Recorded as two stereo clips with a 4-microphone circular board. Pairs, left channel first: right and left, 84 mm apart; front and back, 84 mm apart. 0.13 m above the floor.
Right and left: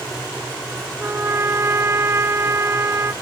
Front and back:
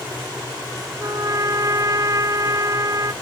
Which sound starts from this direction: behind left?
A trumpet, at 1.0 s.